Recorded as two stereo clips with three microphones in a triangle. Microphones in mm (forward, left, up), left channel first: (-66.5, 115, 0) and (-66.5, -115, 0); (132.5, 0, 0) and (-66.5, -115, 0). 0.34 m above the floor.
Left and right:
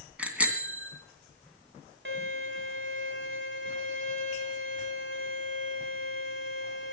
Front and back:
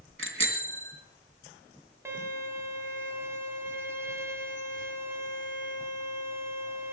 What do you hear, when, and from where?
0.2 s a bicycle bell: 175° right, 2 m
2.0 s a violin: 70° right, 2.5 m